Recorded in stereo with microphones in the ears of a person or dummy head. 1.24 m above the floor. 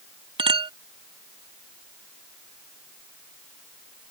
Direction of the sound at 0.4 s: 25° right (ahead or behind).